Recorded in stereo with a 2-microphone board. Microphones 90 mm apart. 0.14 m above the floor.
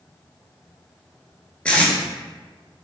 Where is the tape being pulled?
10° left (ahead or behind), 0.5 m.